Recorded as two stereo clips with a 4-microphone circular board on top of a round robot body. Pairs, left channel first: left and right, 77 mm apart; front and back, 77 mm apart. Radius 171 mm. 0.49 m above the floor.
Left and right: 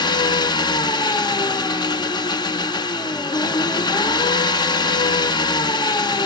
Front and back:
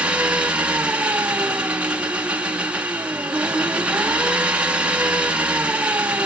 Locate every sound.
0.0 s an engine running: 110° left, 1.5 m